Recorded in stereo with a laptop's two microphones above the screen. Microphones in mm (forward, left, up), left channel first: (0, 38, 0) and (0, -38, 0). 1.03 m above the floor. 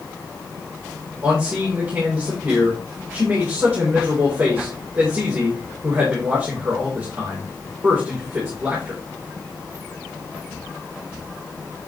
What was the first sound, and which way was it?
A man speaking, 30° right (ahead or behind).